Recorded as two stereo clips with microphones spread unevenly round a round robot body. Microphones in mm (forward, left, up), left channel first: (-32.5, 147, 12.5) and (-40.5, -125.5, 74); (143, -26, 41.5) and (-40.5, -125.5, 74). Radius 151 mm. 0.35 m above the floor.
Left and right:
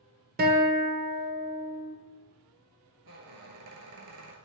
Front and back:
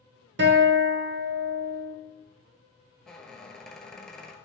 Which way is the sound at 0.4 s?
150° right.